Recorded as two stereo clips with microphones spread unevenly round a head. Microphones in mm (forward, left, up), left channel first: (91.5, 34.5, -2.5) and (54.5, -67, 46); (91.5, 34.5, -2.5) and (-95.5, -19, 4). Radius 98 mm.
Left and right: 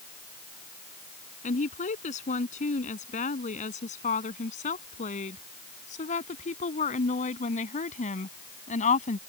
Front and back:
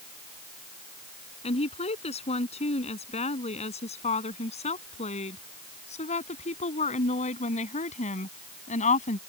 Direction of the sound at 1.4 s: 75° left.